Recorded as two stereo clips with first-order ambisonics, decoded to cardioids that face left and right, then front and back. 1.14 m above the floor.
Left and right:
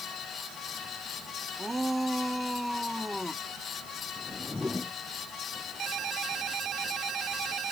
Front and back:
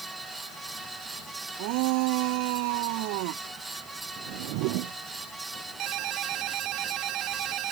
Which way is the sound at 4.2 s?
170° left.